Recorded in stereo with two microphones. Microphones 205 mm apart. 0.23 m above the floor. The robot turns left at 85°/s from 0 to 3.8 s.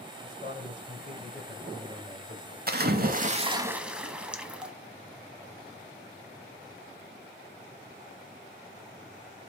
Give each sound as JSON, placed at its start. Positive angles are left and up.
{"t": 0.2, "sound": "a man speaking", "azimuth_deg": 140, "distance_m": 2.0}
{"t": 2.7, "sound": "a splash", "azimuth_deg": -75, "distance_m": 0.6}